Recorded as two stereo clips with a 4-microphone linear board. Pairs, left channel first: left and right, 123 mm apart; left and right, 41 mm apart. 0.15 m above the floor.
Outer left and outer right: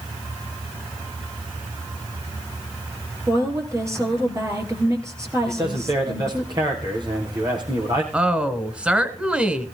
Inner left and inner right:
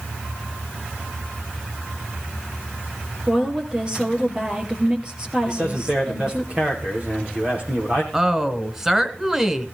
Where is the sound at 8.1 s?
10° right (ahead or behind), 1.5 m.